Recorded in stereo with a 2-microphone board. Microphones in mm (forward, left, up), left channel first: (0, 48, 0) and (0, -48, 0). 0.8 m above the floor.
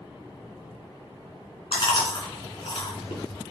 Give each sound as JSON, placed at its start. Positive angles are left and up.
{"t": 1.7, "sound": "chewing", "side_deg": 60, "distance_m": 2.5}